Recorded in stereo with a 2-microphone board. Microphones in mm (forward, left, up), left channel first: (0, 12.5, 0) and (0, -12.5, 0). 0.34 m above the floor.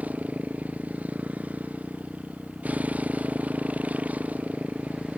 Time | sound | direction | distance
0.0 | a motorcycle | 85° right | ?